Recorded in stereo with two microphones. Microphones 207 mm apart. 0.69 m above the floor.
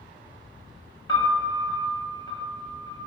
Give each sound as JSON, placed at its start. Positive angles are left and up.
{"t": 1.1, "sound": "a piano", "side_deg": 25, "distance_m": 1.1}